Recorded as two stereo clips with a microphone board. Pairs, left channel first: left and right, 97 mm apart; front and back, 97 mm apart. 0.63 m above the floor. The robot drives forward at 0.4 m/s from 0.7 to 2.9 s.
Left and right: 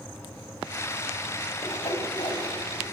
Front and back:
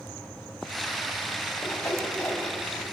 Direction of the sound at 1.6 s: 65° left.